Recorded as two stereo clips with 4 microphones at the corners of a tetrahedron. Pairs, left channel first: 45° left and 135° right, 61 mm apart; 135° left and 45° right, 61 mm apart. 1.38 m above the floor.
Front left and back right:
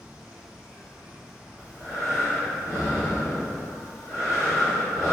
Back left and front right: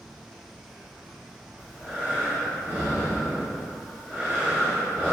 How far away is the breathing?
About 1.6 m.